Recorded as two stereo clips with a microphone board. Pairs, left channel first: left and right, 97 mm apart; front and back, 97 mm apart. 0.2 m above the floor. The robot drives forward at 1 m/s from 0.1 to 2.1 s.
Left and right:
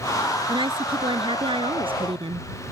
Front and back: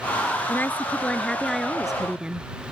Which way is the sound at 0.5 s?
65° right.